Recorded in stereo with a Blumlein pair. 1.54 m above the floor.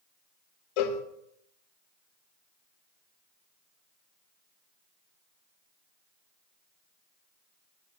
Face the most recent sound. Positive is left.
turn(degrees=45)